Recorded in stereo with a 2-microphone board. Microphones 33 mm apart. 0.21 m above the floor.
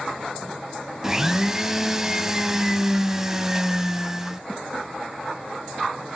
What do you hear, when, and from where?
1.0 s a blender: 15° right (ahead or behind), 0.7 m